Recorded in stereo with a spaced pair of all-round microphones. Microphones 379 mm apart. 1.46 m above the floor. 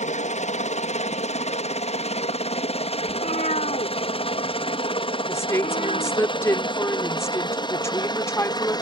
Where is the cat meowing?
20° left (ahead or behind).